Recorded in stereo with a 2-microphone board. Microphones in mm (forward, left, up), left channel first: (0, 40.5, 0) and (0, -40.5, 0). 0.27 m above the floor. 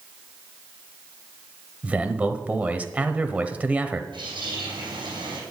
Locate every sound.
1.8 s a man speaking: 20° right (ahead or behind), 0.9 m
4.1 s a bird: 75° right (ahead or behind), 5.5 m